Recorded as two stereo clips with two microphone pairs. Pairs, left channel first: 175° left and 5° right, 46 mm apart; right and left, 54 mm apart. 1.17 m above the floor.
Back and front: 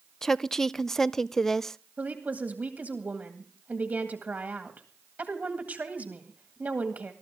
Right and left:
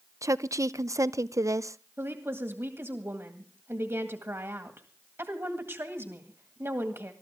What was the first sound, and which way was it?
A woman speaking, 90° left.